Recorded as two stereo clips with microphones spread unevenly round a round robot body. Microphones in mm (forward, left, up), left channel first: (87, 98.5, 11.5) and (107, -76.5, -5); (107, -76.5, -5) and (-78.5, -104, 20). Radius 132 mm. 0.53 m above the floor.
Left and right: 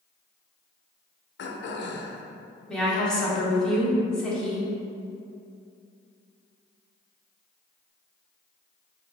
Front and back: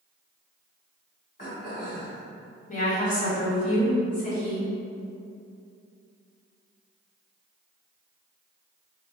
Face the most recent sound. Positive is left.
turn(degrees=5)